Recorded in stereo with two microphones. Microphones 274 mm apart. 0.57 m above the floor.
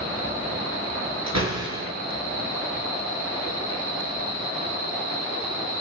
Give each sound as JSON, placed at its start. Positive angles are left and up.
{"t": 1.3, "sound": "a door slam", "side_deg": -80, "distance_m": 7.5}